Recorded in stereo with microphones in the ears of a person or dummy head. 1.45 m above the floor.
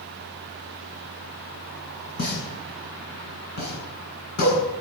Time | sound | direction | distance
2.2 | a pop | 55° left (ahead or behind) | 8 m